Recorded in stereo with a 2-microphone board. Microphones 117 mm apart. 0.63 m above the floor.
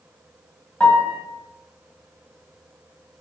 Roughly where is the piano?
Centre.